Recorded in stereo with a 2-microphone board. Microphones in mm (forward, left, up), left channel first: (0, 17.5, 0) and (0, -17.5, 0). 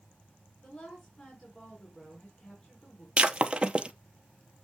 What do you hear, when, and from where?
0.6 s a woman speaking: 30° left (ahead or behind), 3.5 m
3.2 s breaking glass: 30° right (ahead or behind), 0.6 m